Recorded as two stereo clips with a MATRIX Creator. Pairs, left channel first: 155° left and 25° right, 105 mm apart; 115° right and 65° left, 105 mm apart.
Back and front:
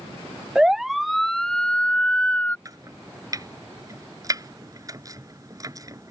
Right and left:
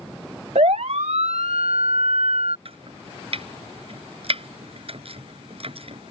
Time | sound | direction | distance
0.6 | a siren | 60° left | ?
2.6 | chopping | 35° left | ?